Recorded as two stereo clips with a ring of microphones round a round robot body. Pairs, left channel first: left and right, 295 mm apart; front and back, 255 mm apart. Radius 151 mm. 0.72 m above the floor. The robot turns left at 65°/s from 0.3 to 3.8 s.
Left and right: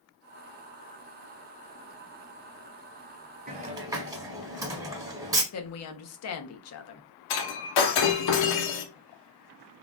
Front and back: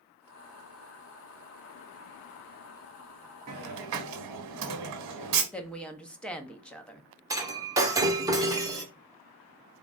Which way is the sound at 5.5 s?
85° left.